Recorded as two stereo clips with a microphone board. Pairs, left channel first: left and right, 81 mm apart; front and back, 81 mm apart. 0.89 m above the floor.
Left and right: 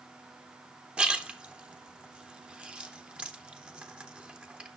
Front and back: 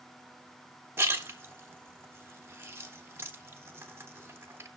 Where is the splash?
160° right, 0.8 m.